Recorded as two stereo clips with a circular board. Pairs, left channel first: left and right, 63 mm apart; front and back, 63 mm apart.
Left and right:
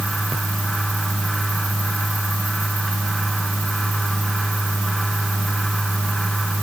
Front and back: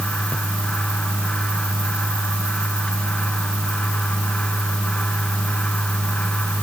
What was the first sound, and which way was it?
Only background noise.